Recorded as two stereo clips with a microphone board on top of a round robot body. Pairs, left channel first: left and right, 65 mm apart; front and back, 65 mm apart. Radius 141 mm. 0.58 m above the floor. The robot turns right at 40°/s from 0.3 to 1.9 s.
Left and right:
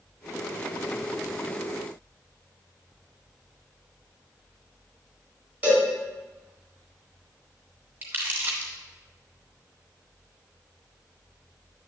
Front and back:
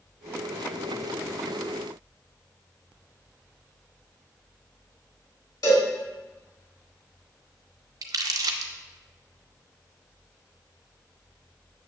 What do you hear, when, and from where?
5.6 s a cowbell: 20° right, 3.5 m
8.0 s crumpling: 155° right, 0.6 m